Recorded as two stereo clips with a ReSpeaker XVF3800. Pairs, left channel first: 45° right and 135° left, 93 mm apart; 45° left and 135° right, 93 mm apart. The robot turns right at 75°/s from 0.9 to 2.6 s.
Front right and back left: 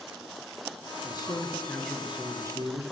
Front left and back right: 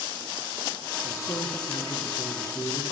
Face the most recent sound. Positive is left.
turn(degrees=95)